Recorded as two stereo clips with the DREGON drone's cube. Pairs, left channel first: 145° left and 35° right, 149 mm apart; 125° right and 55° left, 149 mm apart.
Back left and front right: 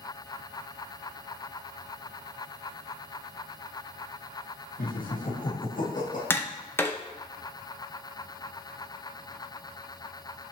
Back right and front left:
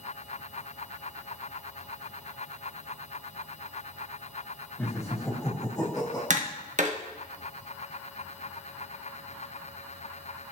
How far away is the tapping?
About 0.8 m.